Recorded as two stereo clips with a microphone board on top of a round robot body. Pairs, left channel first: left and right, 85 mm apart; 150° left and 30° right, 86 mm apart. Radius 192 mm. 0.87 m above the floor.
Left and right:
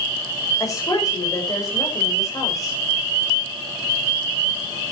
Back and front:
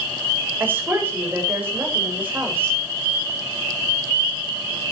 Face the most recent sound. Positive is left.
turn(degrees=40)